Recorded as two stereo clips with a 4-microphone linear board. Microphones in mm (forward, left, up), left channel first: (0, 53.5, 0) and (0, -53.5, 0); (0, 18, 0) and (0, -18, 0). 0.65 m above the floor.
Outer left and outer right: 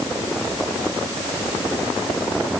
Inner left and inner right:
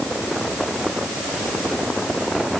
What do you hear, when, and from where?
Only background noise.